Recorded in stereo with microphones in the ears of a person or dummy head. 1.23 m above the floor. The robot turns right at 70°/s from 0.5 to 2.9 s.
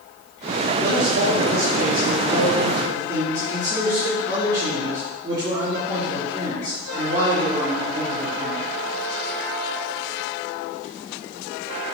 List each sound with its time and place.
0.8 s a man speaking: 170° right, 3 m; by 8.6 s 20° right, 3 m